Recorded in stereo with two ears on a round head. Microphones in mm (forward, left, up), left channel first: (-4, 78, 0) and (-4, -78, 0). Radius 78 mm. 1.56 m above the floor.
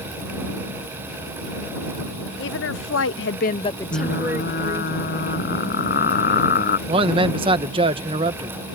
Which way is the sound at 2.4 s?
75° left (ahead or behind).